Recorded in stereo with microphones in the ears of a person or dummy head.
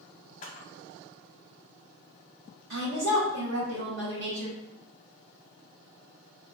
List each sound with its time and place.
0.4 s a camera shutter: 40° left (ahead or behind), 0.7 m
2.7 s a woman speaking: 60° right (ahead or behind), 1.0 m